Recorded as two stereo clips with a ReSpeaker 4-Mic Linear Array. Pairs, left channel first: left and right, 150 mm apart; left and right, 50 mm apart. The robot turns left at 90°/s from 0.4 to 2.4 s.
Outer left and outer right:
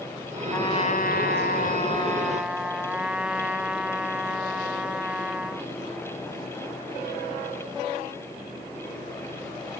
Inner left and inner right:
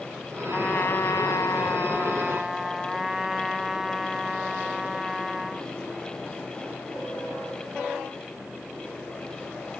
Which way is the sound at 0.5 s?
165° left.